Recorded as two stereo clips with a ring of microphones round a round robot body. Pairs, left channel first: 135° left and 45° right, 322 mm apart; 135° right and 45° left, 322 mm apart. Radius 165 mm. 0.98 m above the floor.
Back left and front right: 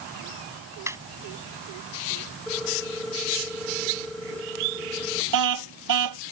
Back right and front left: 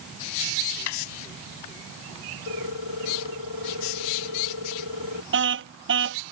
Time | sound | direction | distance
0.9 | laughter | 125° right | ?
2.5 | a ringtone | 135° right | ?
5.3 | a car horn | 10° right | ?